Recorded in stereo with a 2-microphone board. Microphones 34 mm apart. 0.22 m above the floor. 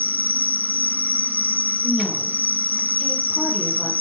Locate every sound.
0.0 s an insect: 75° right (ahead or behind), 1.0 m
1.8 s a woman speaking: 10° left (ahead or behind), 7 m